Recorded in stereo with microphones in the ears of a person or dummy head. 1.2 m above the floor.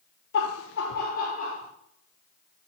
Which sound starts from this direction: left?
Laughter, at 0.3 s.